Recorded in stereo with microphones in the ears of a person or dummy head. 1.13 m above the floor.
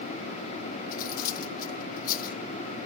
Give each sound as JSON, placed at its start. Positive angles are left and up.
{"t": 0.9, "sound": "cutlery clinking", "side_deg": 45, "distance_m": 1.1}